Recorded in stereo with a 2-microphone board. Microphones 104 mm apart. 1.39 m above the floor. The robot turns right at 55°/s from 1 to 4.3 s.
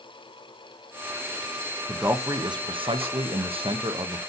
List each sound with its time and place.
1.9 s a man speaking: 165° right, 0.7 m; by 4.2 s 40° right, 0.7 m